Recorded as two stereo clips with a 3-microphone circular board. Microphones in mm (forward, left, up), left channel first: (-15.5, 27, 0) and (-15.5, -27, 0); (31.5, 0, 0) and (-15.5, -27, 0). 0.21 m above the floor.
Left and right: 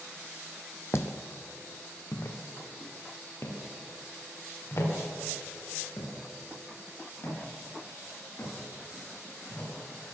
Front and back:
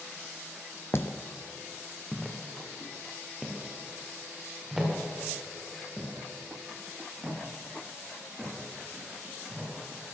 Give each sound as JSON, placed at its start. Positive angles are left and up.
{"t": 0.9, "sound": "footsteps", "azimuth_deg": 60, "distance_m": 0.7}